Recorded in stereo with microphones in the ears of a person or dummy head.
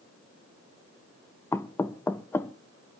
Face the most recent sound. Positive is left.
turn(degrees=15)  # may be behind; listen again after turning